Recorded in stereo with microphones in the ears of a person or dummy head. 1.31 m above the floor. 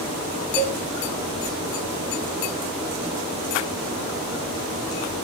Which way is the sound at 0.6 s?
10° left (ahead or behind).